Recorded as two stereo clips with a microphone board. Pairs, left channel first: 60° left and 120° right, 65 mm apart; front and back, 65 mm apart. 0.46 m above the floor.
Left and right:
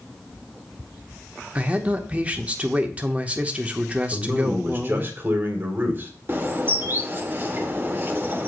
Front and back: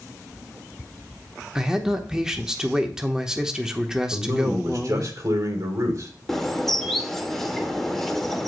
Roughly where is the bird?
Right.